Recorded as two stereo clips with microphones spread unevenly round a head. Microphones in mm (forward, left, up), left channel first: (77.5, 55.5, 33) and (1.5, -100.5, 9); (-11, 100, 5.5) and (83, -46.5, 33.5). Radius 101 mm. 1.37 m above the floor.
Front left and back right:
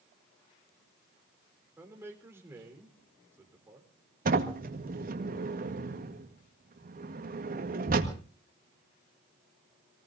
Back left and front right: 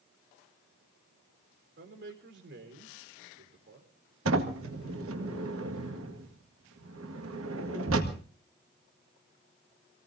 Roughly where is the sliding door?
Right.